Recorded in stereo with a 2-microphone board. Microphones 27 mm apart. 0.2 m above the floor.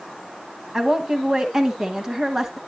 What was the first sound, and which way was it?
A woman speaking, 25° right (ahead or behind).